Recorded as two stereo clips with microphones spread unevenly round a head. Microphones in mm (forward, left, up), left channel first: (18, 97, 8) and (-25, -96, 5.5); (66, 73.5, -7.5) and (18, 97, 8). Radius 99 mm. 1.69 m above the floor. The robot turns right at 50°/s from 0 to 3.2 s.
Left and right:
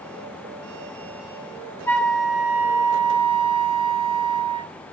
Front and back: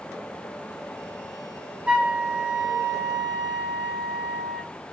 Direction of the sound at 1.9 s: 150° left.